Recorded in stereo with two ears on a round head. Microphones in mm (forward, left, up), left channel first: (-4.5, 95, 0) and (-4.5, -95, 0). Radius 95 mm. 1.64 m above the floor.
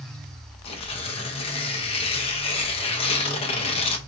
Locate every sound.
0.7 s tearing paper: 30° left (ahead or behind), 0.8 m